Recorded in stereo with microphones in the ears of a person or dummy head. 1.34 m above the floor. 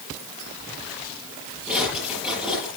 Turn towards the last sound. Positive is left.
turn(degrees=-5)  # may be behind; listen again after turning